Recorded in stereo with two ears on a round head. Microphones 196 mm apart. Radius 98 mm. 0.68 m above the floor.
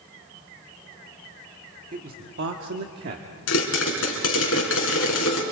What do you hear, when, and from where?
1.9 s a man speaking: 35° right (ahead or behind), 1.5 m; by 3.3 s 40° right (ahead or behind), 1.4 m
3.5 s a pop: 70° left (ahead or behind), 3.5 m